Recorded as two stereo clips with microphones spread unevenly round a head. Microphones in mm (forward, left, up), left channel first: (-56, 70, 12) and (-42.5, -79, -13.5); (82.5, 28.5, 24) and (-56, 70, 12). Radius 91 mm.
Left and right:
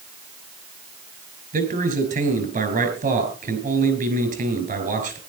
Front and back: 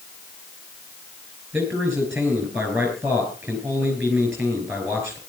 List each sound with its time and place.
1.5 s a man speaking: 120° right, 5.5 m